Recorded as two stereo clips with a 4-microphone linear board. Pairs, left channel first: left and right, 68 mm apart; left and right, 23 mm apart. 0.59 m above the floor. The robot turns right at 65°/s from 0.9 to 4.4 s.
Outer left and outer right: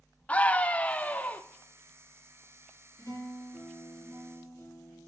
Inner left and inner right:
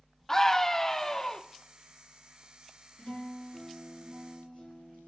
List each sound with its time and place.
0.3 s a scream: 20° left (ahead or behind), 0.6 m; by 1.4 s 25° left (ahead or behind), 0.6 m
3.0 s a guitar: 45° left, 5 m; by 5.1 s 135° left, 5 m